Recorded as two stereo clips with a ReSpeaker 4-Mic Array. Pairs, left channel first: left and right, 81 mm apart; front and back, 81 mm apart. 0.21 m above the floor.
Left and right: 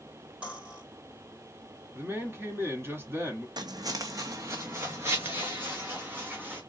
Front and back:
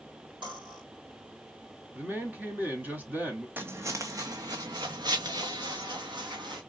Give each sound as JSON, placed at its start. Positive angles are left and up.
{"t": 0.4, "sound": "cutlery clinking", "azimuth_deg": -165, "distance_m": 3.5}
{"t": 1.9, "sound": "a man speaking", "azimuth_deg": -130, "distance_m": 1.5}
{"t": 3.6, "sound": "footsteps", "azimuth_deg": -115, "distance_m": 0.7}